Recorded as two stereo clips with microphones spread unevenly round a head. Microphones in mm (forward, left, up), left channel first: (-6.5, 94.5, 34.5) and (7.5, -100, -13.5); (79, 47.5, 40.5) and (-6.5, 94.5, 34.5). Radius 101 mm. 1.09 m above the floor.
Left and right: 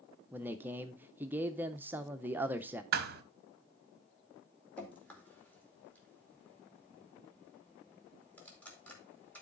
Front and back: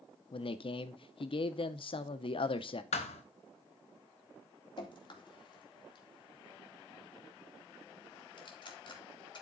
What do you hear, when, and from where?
0.3 s a man speaking: 20° right, 0.6 m
2.9 s a thud: 40° right, 1.0 m
4.8 s dripping: 10° left, 2.5 m